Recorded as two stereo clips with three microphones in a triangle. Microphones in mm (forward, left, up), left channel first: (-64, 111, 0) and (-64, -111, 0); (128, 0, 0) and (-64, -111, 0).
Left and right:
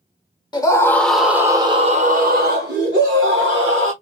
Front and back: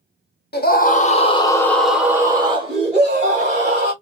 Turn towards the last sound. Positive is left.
turn(degrees=-105)